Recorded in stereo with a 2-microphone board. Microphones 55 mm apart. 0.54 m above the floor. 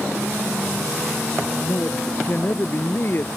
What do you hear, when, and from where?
1.6 s a man speaking: 40° left (ahead or behind); by 3.3 s 45° left (ahead or behind)